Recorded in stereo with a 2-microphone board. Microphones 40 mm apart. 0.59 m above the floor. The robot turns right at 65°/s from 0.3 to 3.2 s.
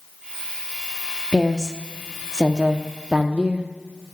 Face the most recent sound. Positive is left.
turn(degrees=-95)